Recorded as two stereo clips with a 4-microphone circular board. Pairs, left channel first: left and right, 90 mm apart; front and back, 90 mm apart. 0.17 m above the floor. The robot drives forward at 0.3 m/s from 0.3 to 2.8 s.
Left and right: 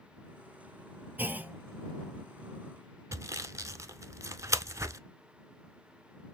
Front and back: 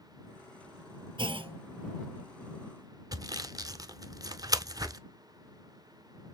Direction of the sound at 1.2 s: 160° right.